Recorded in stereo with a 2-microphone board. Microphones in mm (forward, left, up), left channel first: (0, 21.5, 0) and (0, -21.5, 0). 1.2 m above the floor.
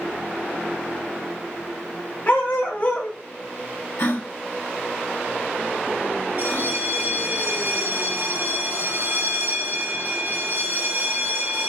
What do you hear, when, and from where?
2.3 s a dog barking: 45° left (ahead or behind), 1.2 m
4.0 s a gasp: 75° left (ahead or behind), 1.4 m
6.4 s a bell: 50° right (ahead or behind), 0.5 m